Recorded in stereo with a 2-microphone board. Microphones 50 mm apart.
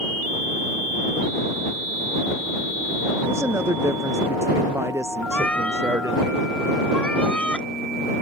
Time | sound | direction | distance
3.3 | a woman speaking | 85° right | ?
5.3 | a cat meowing | 25° left (ahead or behind) | ?